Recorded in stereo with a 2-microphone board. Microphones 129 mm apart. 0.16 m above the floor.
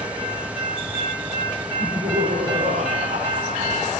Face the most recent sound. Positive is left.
turn(degrees=-75)  # may be behind; listen again after turning